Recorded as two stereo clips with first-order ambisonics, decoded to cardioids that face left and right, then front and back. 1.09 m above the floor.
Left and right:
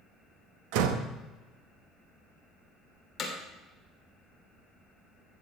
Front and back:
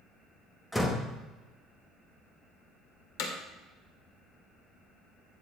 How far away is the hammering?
About 2 m.